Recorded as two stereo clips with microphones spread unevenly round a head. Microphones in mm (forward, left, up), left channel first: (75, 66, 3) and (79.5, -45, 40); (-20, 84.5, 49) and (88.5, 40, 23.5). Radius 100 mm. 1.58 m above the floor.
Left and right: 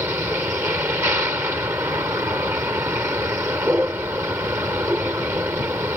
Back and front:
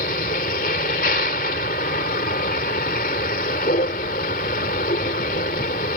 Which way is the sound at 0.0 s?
165° right.